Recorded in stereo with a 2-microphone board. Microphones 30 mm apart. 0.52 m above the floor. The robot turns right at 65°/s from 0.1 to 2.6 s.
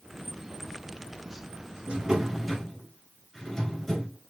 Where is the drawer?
40° right, 2.5 m; by 4.2 s 10° left, 2.5 m.